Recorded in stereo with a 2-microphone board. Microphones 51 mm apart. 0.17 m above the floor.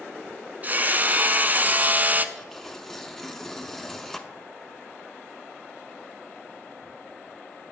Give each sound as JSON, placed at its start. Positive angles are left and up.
{"t": 0.6, "sound": "hammering", "side_deg": -35, "distance_m": 0.5}
{"t": 2.4, "sound": "tearing paper", "side_deg": 5, "distance_m": 0.6}